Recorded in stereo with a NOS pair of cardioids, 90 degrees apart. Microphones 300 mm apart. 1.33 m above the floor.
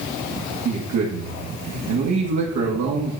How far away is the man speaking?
About 1.8 m.